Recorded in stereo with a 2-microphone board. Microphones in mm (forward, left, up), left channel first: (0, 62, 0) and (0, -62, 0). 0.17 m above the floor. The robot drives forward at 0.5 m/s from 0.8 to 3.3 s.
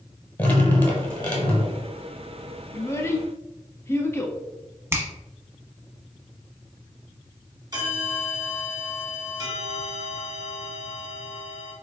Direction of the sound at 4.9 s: 20° right (ahead or behind).